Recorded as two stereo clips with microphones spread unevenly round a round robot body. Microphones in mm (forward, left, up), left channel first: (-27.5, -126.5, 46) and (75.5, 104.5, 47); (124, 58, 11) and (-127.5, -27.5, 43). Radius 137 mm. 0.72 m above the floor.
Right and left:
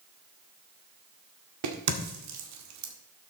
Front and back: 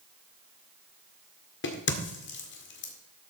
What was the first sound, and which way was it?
A crack, 60° left.